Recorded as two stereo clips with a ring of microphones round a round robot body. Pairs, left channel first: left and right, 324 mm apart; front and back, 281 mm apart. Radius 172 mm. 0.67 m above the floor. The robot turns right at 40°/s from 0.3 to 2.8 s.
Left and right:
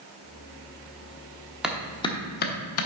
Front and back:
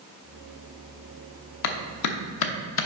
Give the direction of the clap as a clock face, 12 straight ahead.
12 o'clock.